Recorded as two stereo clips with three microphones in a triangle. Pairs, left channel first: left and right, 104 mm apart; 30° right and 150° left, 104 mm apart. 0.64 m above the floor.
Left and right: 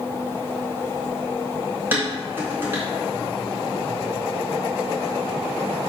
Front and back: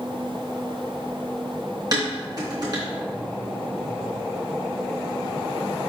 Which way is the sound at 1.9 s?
160° right.